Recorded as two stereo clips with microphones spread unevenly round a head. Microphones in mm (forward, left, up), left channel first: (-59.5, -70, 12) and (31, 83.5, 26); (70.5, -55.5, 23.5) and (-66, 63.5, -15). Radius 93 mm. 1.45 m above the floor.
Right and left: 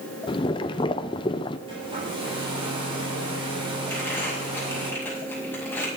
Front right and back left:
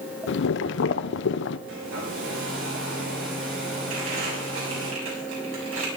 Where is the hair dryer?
120° left, 7.5 m.